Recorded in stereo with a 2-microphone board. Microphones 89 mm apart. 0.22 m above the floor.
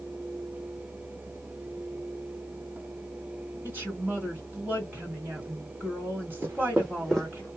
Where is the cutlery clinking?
No cutlery clinking in this recording.